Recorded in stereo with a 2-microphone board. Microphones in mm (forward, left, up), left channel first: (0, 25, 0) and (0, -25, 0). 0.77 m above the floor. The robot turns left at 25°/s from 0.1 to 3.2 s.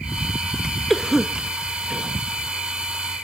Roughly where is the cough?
Centre.